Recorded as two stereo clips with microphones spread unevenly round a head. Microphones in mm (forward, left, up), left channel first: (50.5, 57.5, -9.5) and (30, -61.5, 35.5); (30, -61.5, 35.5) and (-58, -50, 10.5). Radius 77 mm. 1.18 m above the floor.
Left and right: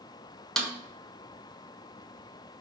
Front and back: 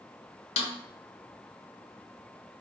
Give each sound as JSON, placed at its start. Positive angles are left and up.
{"t": 0.6, "sound": "a snare drum", "azimuth_deg": 0, "distance_m": 0.5}